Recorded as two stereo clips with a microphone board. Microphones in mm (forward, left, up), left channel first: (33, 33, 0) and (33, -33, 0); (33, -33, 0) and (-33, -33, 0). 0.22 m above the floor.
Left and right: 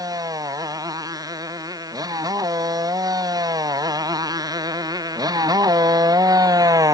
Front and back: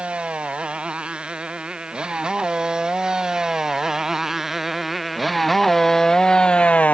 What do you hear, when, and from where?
0.0 s a motorcycle: 105° right; by 7.0 s 65° right